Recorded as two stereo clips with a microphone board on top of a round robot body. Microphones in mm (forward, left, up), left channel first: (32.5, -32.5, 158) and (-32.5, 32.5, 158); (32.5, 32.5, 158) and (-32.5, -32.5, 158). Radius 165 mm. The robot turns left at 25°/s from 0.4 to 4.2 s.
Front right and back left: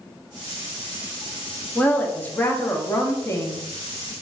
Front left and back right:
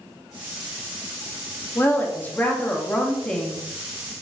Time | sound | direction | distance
1.8 | a woman speaking | 10° left | 0.9 m